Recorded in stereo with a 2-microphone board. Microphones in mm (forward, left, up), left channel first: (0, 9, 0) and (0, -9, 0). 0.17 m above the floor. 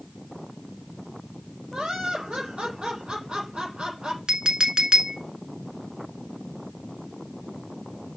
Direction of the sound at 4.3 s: 55° right (ahead or behind).